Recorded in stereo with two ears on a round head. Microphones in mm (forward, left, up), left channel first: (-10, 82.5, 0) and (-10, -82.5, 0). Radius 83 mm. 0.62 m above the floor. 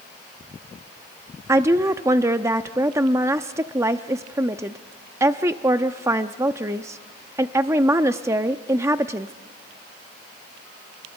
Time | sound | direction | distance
1.5 | a woman speaking | 15° right (ahead or behind) | 0.6 m